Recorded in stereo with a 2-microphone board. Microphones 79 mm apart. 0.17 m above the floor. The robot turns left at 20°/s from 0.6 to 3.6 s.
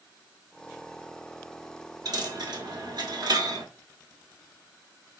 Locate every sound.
2.0 s a dropped coin: 65° right (ahead or behind), 1.0 m; by 3.6 s 60° right (ahead or behind), 1.0 m